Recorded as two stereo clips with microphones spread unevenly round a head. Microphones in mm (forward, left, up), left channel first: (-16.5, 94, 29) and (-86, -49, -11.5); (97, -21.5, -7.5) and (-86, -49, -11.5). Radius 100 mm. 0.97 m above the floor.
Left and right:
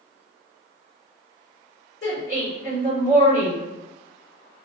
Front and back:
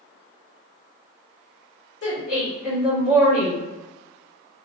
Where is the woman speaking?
15° left, 1.8 m.